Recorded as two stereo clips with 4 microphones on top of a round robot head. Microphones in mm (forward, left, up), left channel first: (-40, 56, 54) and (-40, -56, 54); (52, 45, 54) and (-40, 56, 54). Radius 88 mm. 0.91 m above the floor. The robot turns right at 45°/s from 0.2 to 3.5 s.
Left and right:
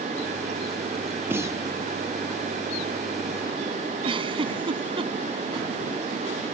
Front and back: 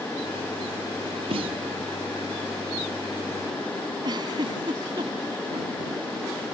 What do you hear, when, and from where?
1.3 s a snare drum: 160° right; by 1.6 s 145° right
4.0 s a giggle: 130° right